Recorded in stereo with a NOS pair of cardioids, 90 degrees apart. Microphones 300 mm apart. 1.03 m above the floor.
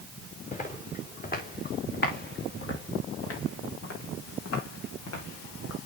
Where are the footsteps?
25° left, 4 m; by 5.8 s 70° left, 3.5 m.